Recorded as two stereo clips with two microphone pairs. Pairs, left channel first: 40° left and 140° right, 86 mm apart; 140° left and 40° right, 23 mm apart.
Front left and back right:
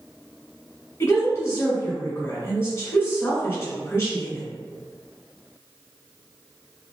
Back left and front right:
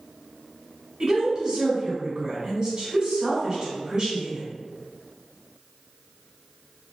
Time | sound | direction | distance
1.0 | a woman speaking | 5° right | 1.3 m